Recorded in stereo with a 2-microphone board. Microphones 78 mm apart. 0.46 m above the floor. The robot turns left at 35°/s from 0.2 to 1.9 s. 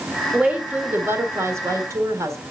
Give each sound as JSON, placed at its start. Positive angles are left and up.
{"t": 0.3, "sound": "a woman speaking", "azimuth_deg": -20, "distance_m": 1.6}